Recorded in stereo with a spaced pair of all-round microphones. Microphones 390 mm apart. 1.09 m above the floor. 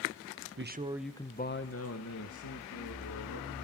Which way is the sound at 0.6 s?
35° right (ahead or behind).